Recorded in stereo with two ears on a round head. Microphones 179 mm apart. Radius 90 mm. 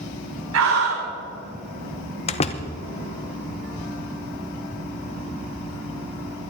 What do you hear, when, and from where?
0.5 s a scream: 75° right (ahead or behind), 1.8 m
2.3 s a door slam: 30° left (ahead or behind), 0.9 m